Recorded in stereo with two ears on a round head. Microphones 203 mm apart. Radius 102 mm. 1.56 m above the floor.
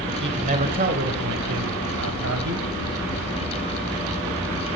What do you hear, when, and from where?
0.2 s a man speaking: 30° right (ahead or behind), 1.4 m; by 2.7 s 85° right, 1.6 m